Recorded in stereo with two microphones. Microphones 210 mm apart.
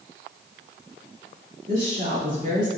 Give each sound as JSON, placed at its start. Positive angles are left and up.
{"t": 1.7, "sound": "a woman speaking", "side_deg": -35, "distance_m": 2.5}